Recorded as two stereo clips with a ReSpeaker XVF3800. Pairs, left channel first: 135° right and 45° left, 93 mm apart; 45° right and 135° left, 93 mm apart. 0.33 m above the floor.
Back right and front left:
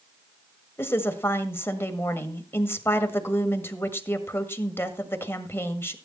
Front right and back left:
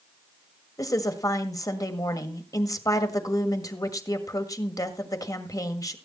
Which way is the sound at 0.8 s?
80° right.